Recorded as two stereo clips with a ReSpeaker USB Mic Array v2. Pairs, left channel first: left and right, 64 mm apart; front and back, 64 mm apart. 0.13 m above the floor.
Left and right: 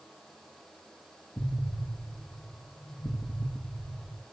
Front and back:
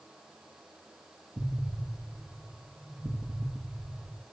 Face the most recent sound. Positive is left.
turn(degrees=145)